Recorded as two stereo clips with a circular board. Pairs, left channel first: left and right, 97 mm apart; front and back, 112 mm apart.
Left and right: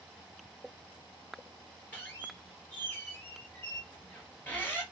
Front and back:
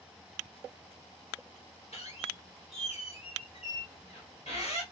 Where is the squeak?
20° left, 1.6 m.